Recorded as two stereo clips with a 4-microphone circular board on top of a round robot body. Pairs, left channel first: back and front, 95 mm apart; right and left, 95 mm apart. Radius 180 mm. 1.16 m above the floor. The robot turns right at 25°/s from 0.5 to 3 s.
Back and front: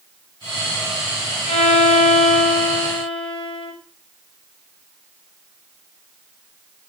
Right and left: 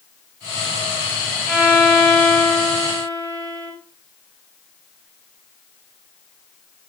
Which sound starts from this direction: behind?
A violin, at 1.5 s.